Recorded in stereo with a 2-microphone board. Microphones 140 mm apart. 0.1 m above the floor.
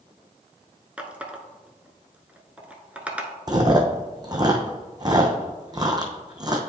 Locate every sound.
1.0 s a running tap: 10° right (ahead or behind), 0.7 m
3.5 s chewing: 30° right (ahead or behind), 0.9 m